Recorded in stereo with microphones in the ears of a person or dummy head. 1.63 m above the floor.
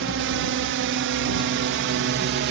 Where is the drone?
65° right (ahead or behind); by 2.5 s 55° right (ahead or behind).